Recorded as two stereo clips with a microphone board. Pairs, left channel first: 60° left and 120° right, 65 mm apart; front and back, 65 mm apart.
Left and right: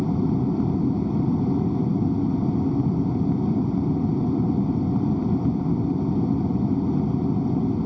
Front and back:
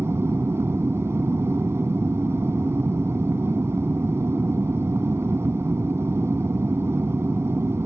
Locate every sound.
0.0 s an aircraft: 150° left